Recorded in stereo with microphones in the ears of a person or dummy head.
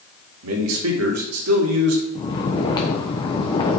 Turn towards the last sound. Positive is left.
turn(degrees=25)  # may be behind; listen again after turning